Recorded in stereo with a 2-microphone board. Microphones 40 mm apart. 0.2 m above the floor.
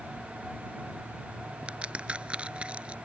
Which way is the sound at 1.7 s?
30° right (ahead or behind).